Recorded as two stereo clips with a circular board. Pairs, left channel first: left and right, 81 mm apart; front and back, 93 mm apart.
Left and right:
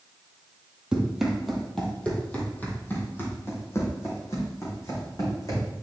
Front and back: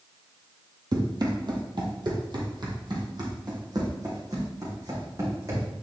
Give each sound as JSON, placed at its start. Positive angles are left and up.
{"t": 0.9, "sound": "running footsteps", "azimuth_deg": -165, "distance_m": 1.8}